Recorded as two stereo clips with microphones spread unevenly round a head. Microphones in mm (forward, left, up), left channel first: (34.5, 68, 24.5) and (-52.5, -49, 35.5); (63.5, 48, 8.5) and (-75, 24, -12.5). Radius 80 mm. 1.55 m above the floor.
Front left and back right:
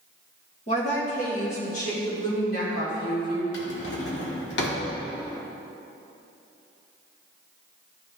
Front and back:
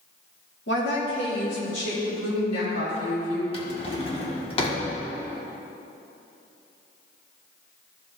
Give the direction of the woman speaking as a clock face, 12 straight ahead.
12 o'clock.